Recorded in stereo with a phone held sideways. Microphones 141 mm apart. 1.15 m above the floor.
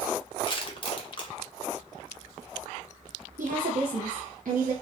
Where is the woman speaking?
80° right, 0.6 m.